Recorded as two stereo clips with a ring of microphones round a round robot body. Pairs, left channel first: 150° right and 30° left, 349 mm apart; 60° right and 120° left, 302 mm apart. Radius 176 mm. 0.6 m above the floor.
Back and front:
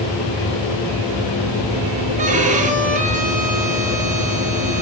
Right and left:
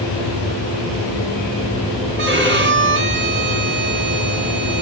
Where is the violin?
90° left, 1.5 m.